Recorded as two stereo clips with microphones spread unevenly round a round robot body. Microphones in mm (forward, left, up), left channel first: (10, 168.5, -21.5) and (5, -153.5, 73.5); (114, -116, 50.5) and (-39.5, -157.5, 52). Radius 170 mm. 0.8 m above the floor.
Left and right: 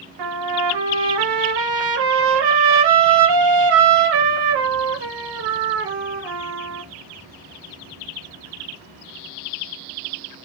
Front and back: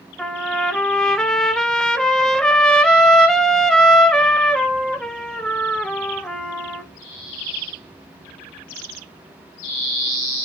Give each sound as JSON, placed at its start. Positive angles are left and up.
{"t": 0.2, "sound": "a trumpet", "azimuth_deg": -70, "distance_m": 0.6}